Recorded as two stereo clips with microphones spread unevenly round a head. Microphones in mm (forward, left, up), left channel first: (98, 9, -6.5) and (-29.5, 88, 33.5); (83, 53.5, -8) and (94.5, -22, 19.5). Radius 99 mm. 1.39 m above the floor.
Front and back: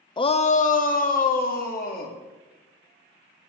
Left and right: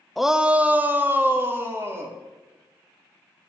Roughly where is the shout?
Ahead.